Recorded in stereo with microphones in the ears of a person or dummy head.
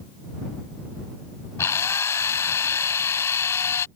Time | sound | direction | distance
1.6 | a drill | 10° left (ahead or behind) | ?